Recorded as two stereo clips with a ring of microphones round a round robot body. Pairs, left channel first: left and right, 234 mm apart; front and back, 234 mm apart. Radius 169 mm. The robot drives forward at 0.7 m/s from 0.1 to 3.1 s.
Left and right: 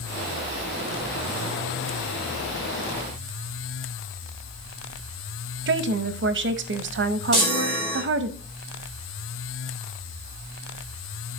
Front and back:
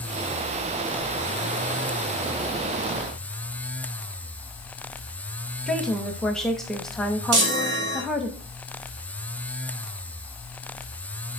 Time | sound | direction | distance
5.7 | a woman speaking | 85° right | 0.8 m
7.3 | a chime | straight behind | 2.5 m